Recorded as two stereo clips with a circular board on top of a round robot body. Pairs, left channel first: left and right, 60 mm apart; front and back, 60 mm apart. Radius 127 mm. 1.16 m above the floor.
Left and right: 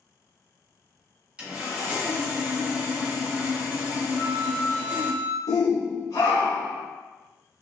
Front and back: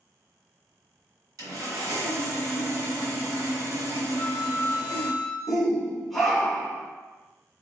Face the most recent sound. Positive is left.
turn(degrees=85)